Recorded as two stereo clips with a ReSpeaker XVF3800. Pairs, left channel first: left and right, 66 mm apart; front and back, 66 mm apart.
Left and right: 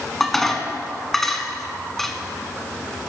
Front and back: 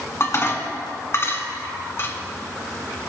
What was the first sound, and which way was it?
Dishes clattering, 5° left.